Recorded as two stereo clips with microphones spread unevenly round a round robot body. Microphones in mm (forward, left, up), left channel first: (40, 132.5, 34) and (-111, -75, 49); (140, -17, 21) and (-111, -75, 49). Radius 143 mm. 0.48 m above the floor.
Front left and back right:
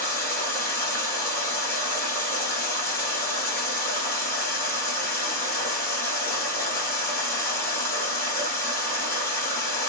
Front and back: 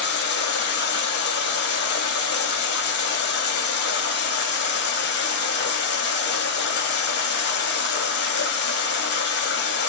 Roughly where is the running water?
Ahead right.